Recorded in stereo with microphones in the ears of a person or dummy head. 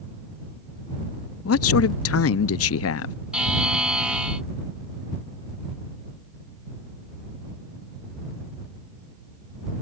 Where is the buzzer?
Centre (ahead or behind).